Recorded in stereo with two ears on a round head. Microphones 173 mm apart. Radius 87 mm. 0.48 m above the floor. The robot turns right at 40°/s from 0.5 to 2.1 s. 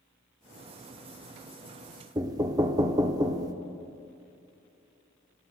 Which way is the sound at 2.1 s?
20° right (ahead or behind).